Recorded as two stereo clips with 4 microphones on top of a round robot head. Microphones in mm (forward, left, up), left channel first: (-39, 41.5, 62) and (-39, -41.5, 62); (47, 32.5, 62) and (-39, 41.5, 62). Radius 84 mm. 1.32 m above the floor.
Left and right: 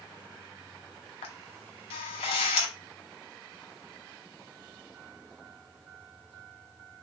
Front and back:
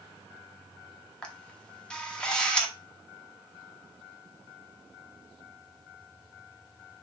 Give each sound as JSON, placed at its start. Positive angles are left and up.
{"t": 1.2, "sound": "a camera shutter", "azimuth_deg": 70, "distance_m": 0.9}